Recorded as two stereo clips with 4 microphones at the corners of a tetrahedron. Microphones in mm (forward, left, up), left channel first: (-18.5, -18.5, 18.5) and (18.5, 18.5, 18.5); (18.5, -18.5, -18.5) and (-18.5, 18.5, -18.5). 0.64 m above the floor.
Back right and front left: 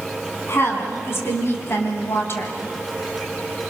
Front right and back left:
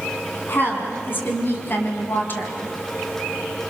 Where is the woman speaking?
95° right, 5 m.